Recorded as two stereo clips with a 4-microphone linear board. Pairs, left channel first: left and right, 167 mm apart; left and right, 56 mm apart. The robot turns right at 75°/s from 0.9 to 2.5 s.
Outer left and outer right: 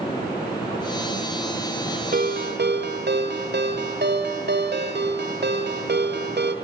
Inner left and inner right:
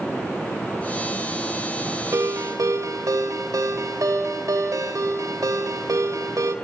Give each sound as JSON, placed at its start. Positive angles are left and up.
{"t": 2.1, "sound": "a ringtone", "side_deg": -60, "distance_m": 2.5}